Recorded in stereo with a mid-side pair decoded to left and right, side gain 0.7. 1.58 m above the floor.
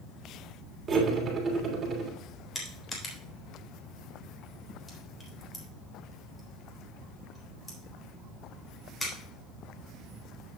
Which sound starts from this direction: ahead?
Crushing, at 2.5 s.